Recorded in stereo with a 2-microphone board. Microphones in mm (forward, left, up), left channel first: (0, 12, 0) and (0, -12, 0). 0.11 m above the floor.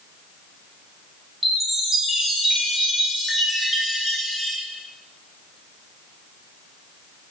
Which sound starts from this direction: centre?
A chime, at 1.4 s.